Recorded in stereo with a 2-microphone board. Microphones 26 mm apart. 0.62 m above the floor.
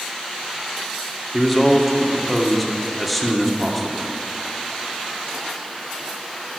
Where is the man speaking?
Centre (ahead or behind), 1.8 m.